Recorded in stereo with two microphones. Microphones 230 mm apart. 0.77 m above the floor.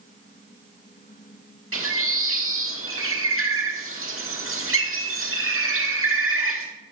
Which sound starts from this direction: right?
A bird, at 1.7 s.